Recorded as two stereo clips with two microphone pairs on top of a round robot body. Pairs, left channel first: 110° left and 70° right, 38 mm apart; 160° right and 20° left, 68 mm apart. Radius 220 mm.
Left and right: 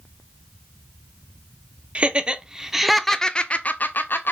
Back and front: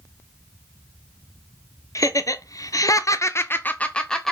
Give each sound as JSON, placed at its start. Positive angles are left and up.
{"t": 1.9, "sound": "laughter", "azimuth_deg": -125, "distance_m": 1.4}